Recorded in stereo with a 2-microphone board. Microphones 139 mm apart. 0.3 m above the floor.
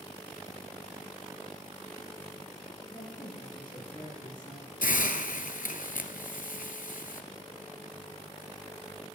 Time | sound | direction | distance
2.9 | a woman speaking | 30° left (ahead or behind) | 5.5 m
4.8 | a hiss | 80° left | 0.9 m